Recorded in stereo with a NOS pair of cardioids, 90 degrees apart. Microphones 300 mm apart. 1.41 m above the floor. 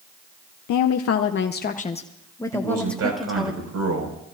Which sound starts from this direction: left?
A woman speaking, at 0.7 s.